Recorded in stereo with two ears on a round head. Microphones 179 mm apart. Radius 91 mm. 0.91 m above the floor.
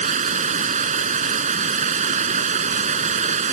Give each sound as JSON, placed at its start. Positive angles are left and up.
{"t": 0.0, "sound": "running water", "side_deg": -40}